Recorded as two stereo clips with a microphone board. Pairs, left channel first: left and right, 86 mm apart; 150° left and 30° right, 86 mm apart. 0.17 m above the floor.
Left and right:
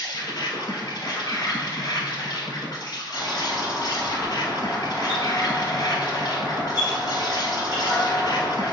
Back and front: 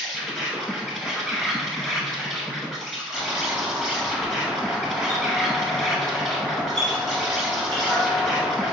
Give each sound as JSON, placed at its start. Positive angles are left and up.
{"t": 0.0, "sound": "an insect", "azimuth_deg": 60, "distance_m": 0.8}
{"t": 3.1, "sound": "a doorbell", "azimuth_deg": -120, "distance_m": 1.9}